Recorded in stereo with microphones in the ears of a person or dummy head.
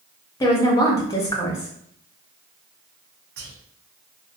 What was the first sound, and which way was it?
A woman speaking, 15° left (ahead or behind).